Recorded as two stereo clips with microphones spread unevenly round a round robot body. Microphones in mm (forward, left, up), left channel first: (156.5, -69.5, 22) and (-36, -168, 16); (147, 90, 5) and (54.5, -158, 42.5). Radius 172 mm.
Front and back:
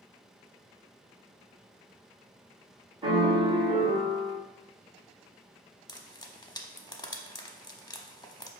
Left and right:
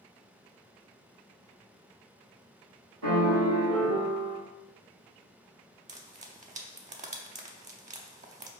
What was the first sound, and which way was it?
A piano, 85° right.